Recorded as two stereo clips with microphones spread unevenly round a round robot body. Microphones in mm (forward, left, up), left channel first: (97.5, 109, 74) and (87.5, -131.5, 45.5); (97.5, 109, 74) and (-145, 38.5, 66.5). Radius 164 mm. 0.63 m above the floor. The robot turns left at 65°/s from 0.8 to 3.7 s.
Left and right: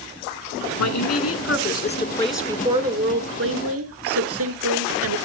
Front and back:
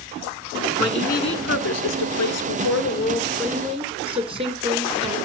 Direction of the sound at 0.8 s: 95° left.